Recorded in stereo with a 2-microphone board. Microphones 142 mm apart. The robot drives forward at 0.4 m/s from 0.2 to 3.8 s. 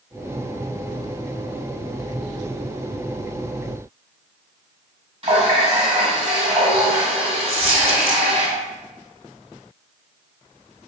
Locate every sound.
5.2 s a running tap: 40° right (ahead or behind), 1.4 m
7.5 s a dropped coin: 45° right (ahead or behind), 1.2 m